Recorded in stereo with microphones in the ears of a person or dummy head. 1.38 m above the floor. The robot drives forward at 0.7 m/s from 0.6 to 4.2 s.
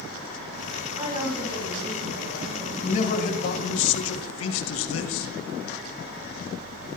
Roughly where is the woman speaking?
Right.